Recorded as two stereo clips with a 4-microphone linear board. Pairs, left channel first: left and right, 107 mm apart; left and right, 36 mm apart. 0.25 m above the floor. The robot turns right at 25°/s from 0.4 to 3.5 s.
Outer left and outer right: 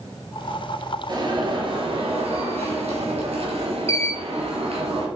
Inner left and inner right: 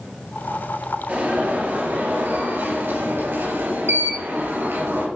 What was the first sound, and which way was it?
An alarm, 135° right.